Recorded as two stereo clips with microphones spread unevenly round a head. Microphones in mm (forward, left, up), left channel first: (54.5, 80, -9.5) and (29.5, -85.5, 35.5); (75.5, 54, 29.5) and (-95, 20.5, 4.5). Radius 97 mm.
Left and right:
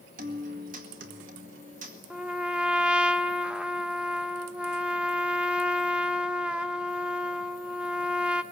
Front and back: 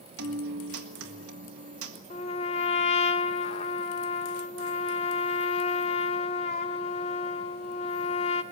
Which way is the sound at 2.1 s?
30° right.